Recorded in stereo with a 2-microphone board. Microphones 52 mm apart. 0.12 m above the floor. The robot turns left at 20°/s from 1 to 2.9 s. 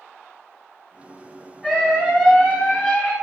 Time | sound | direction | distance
1.6 | a scream | 15° left (ahead or behind) | 1.8 m